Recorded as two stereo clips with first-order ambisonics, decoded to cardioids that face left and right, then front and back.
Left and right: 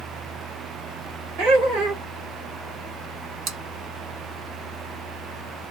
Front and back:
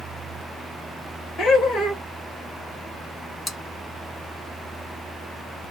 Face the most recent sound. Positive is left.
turn(degrees=-75)